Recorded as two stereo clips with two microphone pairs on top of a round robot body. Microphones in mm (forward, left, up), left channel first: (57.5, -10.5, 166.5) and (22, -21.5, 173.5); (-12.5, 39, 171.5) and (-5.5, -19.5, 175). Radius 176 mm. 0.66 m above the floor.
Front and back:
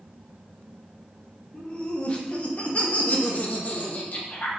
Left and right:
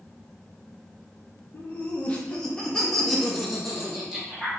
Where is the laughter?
55° left, 1.3 m; by 4.5 s 5° right, 2 m.